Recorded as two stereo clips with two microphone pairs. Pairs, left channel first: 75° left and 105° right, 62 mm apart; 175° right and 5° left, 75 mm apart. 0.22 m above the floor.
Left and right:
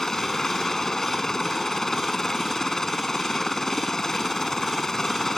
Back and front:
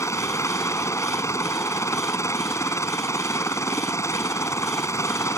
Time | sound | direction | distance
0.0 | a helicopter | 155° left | ?